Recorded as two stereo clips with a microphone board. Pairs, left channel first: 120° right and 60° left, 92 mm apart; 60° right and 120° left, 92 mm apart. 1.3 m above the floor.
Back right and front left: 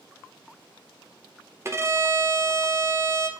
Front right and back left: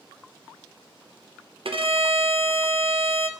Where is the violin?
120° left, 0.8 m.